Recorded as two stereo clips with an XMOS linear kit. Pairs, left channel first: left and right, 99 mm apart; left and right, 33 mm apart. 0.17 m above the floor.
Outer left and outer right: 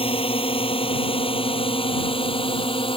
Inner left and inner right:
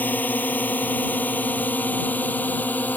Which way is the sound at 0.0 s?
65° left (ahead or behind).